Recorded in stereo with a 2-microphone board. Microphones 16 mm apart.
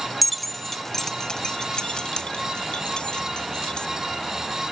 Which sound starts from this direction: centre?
Keys jangling, at 0.2 s.